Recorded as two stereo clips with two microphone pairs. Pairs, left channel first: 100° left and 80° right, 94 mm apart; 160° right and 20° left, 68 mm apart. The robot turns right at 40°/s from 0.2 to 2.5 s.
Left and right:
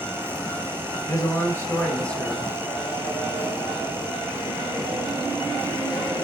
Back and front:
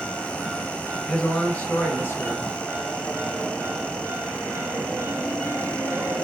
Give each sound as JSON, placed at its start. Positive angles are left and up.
{"t": 1.1, "sound": "a man speaking", "azimuth_deg": 130, "distance_m": 1.6}